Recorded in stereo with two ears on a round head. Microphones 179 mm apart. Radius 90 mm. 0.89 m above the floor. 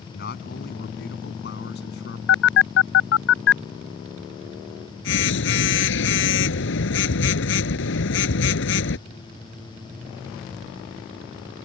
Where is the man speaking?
50° left (ahead or behind); by 2.2 s 55° left (ahead or behind).